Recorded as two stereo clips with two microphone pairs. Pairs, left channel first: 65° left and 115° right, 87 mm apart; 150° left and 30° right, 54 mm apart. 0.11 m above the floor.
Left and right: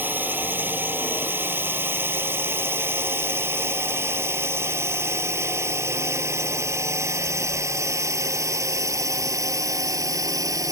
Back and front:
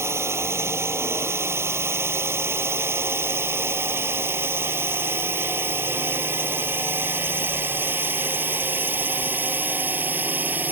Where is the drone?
50° right; by 10.7 s 75° right.